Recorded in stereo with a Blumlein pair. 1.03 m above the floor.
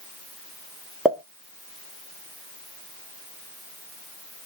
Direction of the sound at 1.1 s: 10° right.